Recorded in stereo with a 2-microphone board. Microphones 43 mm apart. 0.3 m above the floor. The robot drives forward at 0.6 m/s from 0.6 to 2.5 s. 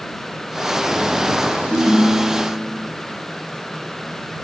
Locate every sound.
1.7 s a ringtone: 20° left (ahead or behind), 1.3 m; by 2.9 s 15° left (ahead or behind), 1.7 m